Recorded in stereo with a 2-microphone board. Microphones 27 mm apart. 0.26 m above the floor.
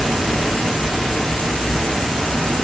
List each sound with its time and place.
0.0 s an insect: 40° left (ahead or behind), 0.9 m